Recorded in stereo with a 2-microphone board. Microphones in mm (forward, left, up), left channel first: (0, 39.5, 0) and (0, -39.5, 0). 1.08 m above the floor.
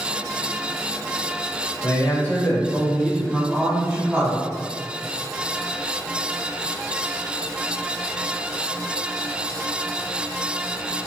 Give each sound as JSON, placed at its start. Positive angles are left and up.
{"t": 1.8, "sound": "a man speaking", "side_deg": 35, "distance_m": 1.1}